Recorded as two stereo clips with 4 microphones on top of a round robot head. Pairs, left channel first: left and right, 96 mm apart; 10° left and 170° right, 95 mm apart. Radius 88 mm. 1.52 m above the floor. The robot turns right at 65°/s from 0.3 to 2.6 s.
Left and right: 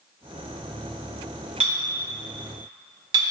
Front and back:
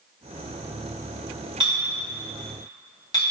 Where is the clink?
115° right, 0.7 m; by 3.2 s 50° right, 0.7 m.